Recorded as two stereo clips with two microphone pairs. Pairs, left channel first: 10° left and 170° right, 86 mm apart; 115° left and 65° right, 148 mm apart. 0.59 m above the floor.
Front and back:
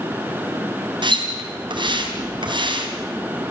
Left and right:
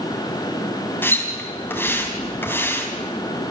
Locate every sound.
1.0 s a splash: 170° right, 3.5 m